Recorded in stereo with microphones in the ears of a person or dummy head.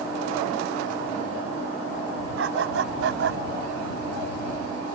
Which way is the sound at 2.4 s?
75° right (ahead or behind).